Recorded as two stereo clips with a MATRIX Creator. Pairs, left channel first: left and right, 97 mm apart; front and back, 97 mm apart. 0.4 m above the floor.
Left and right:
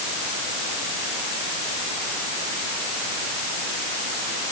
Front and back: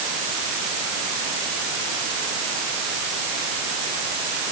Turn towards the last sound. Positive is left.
No sound to turn to.